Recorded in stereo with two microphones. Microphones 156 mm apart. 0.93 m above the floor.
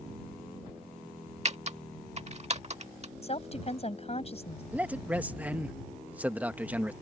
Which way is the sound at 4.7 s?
10° right (ahead or behind).